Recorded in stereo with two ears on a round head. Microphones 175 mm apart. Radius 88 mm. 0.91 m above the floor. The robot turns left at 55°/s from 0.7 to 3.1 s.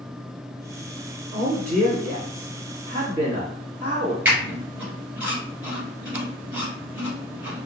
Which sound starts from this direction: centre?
A squeak, at 4.2 s.